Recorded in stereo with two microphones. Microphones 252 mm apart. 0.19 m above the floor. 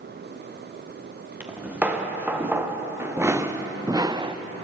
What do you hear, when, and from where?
1.4 s footsteps: 5° right (ahead or behind), 2.5 m; by 4.4 s 20° right (ahead or behind), 0.6 m